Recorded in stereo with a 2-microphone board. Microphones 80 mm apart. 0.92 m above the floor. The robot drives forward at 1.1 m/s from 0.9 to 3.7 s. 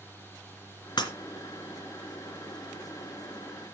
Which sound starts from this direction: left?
Breaking glass, at 1.0 s.